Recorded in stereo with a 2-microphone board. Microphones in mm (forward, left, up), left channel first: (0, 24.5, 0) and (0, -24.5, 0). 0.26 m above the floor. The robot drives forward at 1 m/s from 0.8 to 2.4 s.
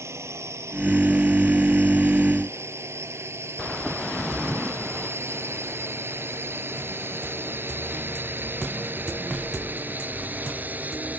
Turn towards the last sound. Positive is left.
turn(degrees=-35)  # may be behind; listen again after turning